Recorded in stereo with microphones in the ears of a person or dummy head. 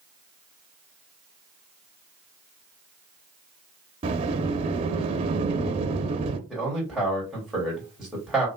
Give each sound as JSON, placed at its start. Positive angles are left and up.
{"t": 4.0, "sound": "a sliding door", "side_deg": -30, "distance_m": 0.7}
{"t": 6.5, "sound": "a man speaking", "side_deg": -5, "distance_m": 2.5}